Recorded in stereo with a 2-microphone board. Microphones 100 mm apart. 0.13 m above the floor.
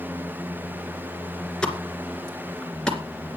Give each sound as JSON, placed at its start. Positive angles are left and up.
{"t": 1.6, "sound": "a pop", "side_deg": 10, "distance_m": 2.0}